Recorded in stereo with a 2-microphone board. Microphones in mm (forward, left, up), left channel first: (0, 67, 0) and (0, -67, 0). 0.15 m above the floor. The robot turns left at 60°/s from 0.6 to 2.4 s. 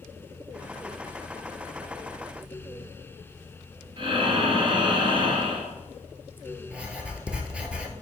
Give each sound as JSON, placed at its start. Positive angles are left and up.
{"t": 4.0, "sound": "breathing", "side_deg": -40, "distance_m": 1.7}
{"t": 6.7, "sound": "writing", "side_deg": -10, "distance_m": 0.9}